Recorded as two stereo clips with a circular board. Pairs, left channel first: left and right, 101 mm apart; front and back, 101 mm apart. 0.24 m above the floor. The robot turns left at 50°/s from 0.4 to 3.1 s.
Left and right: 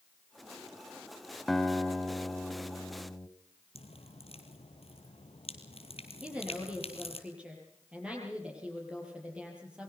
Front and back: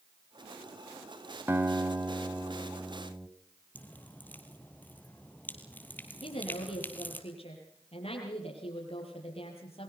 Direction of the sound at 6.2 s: 10° right.